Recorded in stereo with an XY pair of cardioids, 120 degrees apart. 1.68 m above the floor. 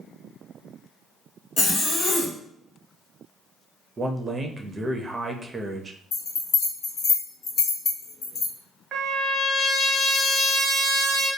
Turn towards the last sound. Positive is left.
turn(degrees=-40)